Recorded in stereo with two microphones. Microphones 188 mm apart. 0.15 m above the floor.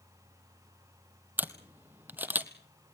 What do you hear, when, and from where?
1.4 s a camera shutter: 10° right (ahead or behind), 1.2 m